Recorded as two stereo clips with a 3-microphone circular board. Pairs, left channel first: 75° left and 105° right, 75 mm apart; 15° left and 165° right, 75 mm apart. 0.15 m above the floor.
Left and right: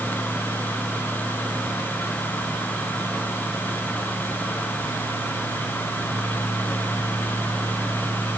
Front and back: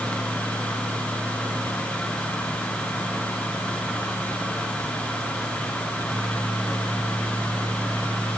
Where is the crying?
No crying in this recording.